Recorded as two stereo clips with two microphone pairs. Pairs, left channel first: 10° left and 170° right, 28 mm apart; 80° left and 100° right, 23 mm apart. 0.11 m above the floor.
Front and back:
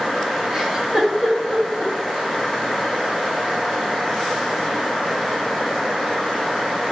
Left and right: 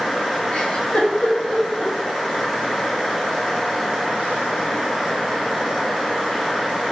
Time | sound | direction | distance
0.5 | a giggle | 115° left | 1.2 m